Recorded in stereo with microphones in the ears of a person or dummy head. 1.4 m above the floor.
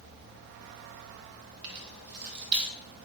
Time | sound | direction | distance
1.6 | keys jangling | 50° right (ahead or behind) | 1.1 m